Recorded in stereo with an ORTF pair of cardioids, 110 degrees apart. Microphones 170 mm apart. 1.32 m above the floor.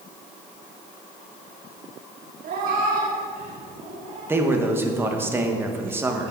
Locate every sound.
2.4 s a cat meowing: 65° right, 1.6 m; by 4.4 s 40° right, 4 m
4.3 s a man speaking: 15° right, 1.3 m